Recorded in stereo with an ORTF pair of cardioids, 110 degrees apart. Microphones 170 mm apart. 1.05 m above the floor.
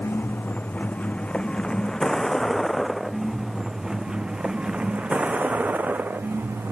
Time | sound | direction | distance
0.0 | a vehicle | 10° left | ?